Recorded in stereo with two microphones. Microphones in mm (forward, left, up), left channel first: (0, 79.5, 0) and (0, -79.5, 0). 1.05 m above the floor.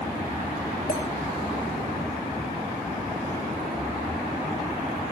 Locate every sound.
0.9 s a clink: 60° left (ahead or behind), 3.5 m